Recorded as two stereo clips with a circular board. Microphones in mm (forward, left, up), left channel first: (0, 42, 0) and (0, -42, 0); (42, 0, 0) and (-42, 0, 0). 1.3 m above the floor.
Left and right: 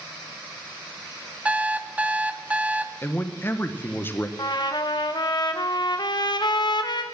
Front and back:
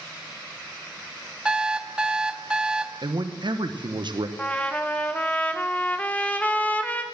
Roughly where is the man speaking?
Behind left.